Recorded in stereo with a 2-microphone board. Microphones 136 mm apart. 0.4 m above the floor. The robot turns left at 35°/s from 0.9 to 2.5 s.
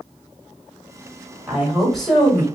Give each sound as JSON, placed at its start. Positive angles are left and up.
{"t": 1.5, "sound": "a woman speaking", "azimuth_deg": -165, "distance_m": 1.6}